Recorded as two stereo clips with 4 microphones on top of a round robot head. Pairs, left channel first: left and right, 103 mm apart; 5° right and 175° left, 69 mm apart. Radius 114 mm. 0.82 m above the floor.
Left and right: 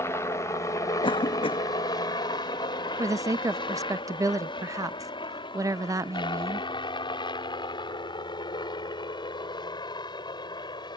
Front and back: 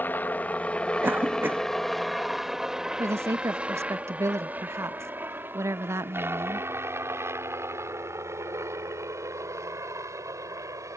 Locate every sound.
0.0 s a helicopter: 40° left; by 11.0 s 135° left
1.0 s a cough: 120° left
3.0 s a woman speaking: 145° right